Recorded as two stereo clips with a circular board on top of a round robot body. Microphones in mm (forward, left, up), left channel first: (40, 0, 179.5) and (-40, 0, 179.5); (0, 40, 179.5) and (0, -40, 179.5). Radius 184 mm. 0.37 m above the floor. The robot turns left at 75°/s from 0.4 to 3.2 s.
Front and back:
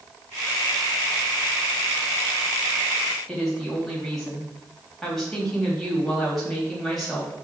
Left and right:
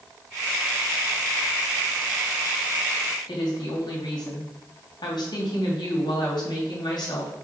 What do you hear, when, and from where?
3.3 s a woman speaking: 85° left, 3 m